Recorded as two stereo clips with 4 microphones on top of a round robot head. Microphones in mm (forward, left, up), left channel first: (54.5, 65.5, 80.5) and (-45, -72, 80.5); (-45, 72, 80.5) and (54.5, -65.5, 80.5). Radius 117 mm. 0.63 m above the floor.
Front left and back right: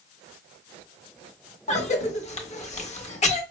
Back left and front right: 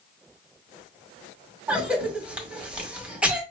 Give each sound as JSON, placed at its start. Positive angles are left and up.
{"t": 1.7, "sound": "a cough", "azimuth_deg": 25, "distance_m": 1.5}